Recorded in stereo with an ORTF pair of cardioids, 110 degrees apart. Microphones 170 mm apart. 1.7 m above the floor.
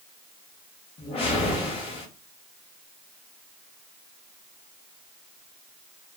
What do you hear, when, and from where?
1.0 s a whoosh: 35° left, 1.1 m